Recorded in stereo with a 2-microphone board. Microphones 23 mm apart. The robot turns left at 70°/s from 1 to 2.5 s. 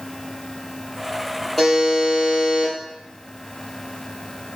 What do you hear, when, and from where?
1.6 s a buzzer: 10° left, 3 m; by 2.7 s 55° right, 3 m